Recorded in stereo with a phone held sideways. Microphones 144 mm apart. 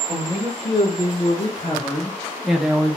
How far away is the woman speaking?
About 1.4 m.